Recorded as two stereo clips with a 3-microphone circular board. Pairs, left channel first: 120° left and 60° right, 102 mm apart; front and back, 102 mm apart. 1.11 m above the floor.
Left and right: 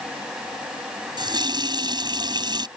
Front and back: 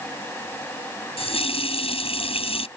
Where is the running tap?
15° right.